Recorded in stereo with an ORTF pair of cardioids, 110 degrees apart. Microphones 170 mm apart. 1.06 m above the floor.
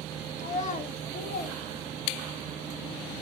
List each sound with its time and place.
0.4 s a child speaking: 45° left, 1.2 m; by 2.5 s 55° left, 3 m